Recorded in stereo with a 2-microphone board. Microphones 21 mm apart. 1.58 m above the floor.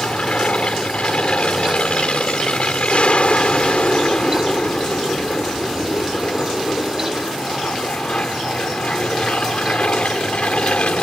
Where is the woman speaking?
No woman speaking in this recording.